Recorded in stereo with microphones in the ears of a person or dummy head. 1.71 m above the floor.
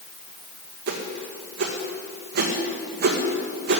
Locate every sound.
0.9 s a whoosh: 60° right (ahead or behind), 2.0 m